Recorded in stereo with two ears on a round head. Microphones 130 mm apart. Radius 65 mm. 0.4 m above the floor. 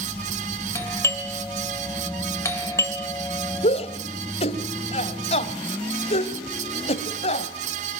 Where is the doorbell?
20° left (ahead or behind), 2.5 m.